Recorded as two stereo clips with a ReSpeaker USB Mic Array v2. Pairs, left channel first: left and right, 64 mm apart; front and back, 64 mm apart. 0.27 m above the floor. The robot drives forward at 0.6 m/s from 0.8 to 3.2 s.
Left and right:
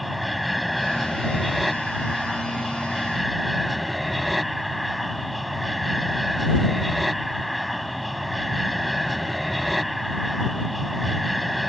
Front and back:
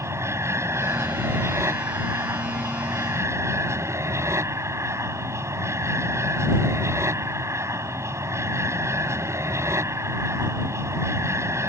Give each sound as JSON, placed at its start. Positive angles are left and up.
{"t": 0.0, "sound": "an aircraft", "azimuth_deg": 180}